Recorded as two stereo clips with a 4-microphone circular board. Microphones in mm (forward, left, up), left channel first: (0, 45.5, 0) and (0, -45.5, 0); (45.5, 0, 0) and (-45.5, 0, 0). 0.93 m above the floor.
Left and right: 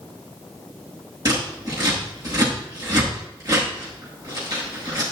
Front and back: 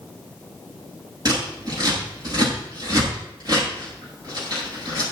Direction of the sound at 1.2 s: 135° right.